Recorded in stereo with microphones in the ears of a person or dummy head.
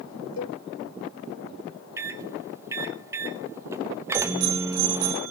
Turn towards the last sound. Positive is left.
turn(degrees=-80)